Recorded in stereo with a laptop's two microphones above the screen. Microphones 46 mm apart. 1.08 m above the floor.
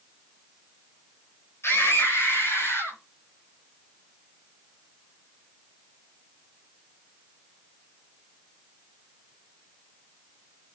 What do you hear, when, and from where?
1.6 s a scream: 80° left, 4 m